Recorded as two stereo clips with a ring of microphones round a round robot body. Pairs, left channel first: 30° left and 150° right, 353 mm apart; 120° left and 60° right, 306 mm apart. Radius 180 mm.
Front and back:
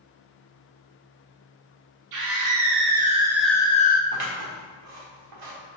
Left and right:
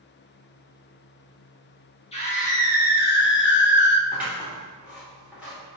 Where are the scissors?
145° right, 1.9 m.